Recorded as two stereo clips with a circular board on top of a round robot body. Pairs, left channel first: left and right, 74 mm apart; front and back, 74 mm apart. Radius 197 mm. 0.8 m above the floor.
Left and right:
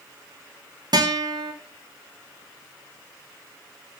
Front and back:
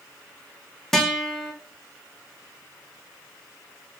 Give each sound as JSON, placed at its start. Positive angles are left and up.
{"t": 0.9, "sound": "a guitar", "azimuth_deg": -85, "distance_m": 2.5}